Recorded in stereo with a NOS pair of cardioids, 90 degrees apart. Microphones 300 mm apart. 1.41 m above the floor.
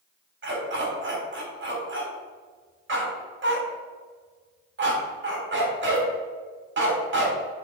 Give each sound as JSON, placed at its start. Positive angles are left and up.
{"t": 0.4, "sound": "a dog barking", "azimuth_deg": -40, "distance_m": 3.5}